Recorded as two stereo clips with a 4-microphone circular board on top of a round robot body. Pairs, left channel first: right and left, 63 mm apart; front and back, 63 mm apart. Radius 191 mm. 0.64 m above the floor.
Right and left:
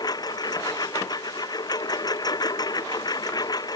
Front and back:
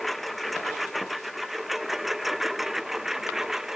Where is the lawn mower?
90° right; by 3.8 s 95° right.